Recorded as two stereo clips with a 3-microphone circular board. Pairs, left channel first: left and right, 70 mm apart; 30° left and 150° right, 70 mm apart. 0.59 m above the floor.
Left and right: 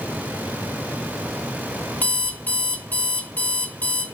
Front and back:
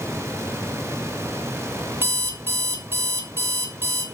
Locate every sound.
2.0 s an alarm clock: 155° left, 1.4 m